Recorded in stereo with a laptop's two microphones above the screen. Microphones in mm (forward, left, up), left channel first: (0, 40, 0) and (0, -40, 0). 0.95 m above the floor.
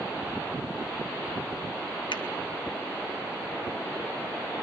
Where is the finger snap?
85° left, 1.1 m.